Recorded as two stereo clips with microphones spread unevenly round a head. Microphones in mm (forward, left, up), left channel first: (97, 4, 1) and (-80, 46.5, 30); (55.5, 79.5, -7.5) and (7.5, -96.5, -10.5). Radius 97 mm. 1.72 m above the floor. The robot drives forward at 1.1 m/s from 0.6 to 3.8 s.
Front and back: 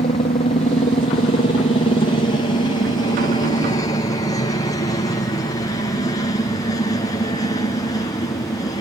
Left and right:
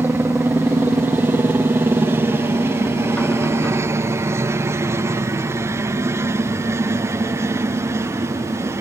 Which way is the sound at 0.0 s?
30° right.